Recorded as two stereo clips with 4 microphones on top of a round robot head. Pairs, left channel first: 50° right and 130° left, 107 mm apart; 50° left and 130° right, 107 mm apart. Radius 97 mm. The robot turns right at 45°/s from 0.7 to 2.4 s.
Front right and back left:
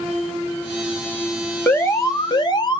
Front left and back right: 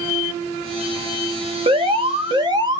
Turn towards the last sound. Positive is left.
turn(degrees=-90)